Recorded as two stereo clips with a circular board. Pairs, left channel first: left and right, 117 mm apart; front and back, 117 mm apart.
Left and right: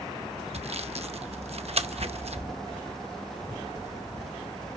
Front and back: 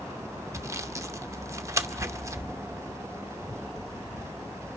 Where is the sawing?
115° right, 0.6 m.